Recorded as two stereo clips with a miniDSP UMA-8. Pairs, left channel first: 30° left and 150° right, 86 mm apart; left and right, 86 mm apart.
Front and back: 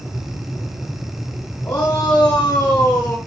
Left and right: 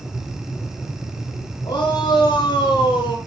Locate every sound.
1.6 s a shout: 90° left, 3.5 m; by 3.2 s 100° left, 4 m